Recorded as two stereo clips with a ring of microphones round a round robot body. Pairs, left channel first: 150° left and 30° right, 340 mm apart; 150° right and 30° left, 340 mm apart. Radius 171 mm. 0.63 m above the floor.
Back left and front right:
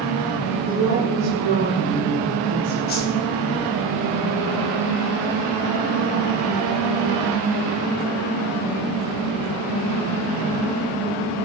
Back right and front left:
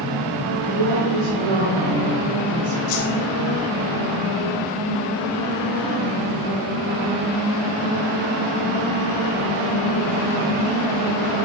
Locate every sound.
0.5 s a woman speaking: 40° left, 1.6 m; by 2.8 s 20° left, 3 m
2.9 s a whoosh: 150° right, 1.9 m